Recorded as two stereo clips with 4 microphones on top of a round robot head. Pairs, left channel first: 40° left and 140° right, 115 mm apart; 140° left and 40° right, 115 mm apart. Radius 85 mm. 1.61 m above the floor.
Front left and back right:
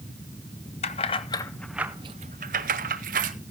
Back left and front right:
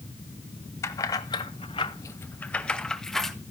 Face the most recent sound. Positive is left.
turn(degrees=-130)